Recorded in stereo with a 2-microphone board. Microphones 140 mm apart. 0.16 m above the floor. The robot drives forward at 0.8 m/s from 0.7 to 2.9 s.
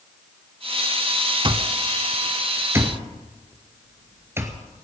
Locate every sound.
1.4 s an alarm clock: 35° right (ahead or behind), 0.8 m; by 4.8 s 20° right (ahead or behind), 1.5 m